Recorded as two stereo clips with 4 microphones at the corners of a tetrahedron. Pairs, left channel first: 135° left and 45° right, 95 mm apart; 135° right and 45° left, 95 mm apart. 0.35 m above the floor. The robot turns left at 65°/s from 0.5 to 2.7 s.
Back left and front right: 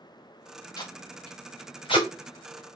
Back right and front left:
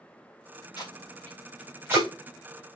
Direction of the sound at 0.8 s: Straight behind.